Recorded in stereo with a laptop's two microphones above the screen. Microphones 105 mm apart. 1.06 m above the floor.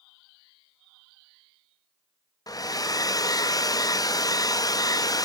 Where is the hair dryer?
35° left (ahead or behind), 0.5 m.